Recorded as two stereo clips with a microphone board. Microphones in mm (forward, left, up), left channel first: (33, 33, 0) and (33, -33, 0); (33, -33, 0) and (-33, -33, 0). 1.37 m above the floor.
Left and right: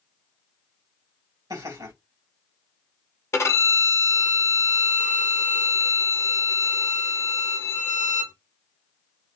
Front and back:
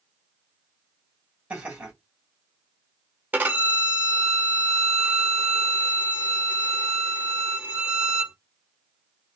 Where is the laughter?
105° right, 2.5 m.